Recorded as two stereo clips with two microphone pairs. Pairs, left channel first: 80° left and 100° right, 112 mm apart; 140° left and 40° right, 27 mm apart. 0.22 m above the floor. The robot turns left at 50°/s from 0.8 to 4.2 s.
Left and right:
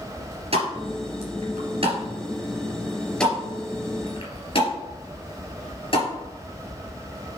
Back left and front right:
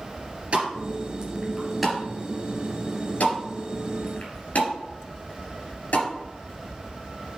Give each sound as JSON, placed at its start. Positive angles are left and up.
{"t": 0.5, "sound": "a pop", "azimuth_deg": -80, "distance_m": 3.0}